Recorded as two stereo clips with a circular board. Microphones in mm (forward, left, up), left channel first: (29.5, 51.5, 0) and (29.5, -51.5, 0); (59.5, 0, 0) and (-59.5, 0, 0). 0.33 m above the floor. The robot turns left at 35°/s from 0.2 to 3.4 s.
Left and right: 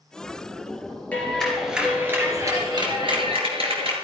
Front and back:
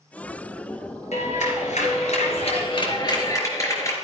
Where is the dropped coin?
I don't hear a dropped coin.